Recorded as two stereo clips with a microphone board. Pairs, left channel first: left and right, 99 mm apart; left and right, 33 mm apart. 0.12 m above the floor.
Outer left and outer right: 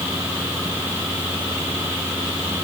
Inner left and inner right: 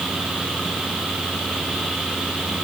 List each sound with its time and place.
Only background noise.